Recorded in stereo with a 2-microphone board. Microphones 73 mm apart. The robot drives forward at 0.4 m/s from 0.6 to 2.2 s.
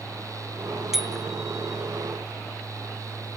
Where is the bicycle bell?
5° right (ahead or behind).